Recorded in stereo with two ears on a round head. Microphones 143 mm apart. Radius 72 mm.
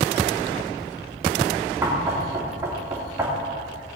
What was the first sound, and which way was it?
Knocking, 20° right (ahead or behind).